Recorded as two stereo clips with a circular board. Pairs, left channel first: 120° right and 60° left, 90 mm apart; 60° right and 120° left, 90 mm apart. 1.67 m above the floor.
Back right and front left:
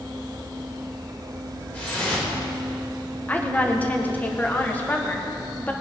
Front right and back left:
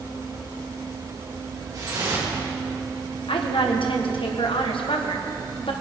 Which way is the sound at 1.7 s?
170° left.